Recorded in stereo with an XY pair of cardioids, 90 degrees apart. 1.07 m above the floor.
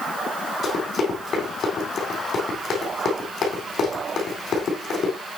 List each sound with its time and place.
0.6 s running footsteps: 60° left, 3.5 m